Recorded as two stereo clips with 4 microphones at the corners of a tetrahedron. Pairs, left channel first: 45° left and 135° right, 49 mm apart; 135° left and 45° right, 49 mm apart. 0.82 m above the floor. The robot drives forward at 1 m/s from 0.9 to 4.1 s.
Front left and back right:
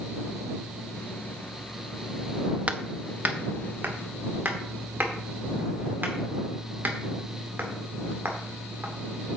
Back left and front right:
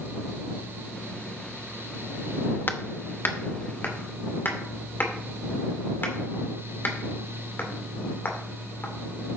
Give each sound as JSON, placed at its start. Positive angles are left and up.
{"t": 2.7, "sound": "hammering", "azimuth_deg": 170, "distance_m": 0.7}